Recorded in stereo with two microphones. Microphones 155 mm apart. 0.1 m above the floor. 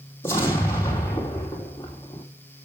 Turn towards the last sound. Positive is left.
turn(degrees=15)  # may be behind; listen again after turning